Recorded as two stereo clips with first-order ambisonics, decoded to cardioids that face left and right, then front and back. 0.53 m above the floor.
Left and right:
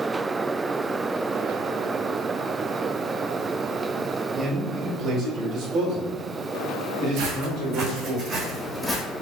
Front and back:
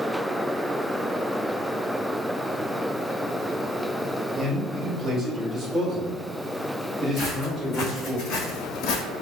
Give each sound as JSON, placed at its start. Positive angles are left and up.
{"t": 4.4, "sound": "a man speaking", "azimuth_deg": -140, "distance_m": 1.4}
{"t": 7.2, "sound": "footsteps", "azimuth_deg": -65, "distance_m": 2.5}